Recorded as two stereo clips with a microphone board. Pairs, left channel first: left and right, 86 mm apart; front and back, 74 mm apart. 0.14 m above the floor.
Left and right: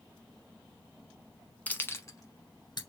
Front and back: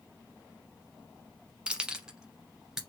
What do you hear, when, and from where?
1.7 s keys jangling: 125° left, 1.0 m; by 2.8 s 100° left, 1.5 m